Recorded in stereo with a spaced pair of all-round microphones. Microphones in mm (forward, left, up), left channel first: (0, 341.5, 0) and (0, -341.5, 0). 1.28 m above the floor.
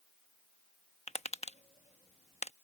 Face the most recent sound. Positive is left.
turn(degrees=10)  # may be behind; listen again after turning